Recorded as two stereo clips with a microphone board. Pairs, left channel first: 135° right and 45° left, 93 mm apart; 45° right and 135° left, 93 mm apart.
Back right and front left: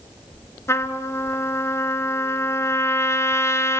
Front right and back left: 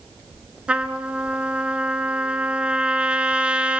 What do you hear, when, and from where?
0.7 s a trumpet: 160° right, 1.1 m